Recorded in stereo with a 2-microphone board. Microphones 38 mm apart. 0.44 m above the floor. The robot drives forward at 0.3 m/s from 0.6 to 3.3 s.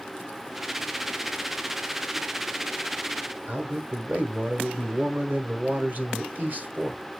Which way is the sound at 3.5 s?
45° right (ahead or behind).